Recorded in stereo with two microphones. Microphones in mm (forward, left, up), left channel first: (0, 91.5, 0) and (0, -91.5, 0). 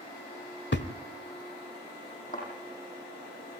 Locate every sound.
0.7 s a thud: 75° left (ahead or behind), 1.1 m
2.3 s a thud: 45° left (ahead or behind), 8.5 m